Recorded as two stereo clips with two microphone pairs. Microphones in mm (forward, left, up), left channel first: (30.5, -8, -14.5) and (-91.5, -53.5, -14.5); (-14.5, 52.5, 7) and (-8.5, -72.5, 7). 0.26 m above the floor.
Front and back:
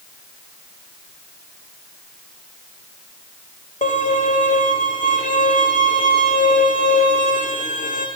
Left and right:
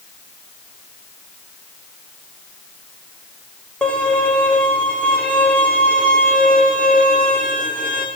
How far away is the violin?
About 5 m.